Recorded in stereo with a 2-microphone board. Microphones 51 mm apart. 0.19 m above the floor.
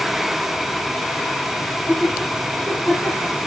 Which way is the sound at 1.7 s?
25° left (ahead or behind).